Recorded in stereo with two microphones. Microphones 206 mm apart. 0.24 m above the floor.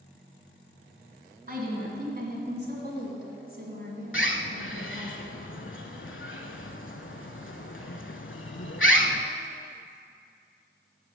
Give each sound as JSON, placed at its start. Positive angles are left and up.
{"t": 1.5, "sound": "a woman speaking", "side_deg": -45, "distance_m": 2.0}
{"t": 4.1, "sound": "a bird", "side_deg": 75, "distance_m": 0.5}